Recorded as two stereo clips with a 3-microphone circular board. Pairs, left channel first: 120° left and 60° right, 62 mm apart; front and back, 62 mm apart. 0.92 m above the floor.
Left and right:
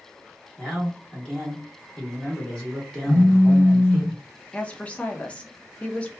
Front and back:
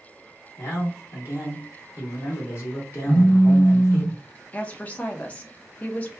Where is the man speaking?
40° left, 1.5 m.